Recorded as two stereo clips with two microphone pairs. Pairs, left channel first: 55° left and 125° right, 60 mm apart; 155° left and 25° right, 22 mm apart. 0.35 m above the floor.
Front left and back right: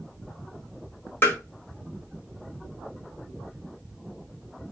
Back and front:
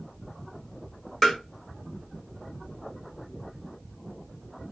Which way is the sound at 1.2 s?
75° left.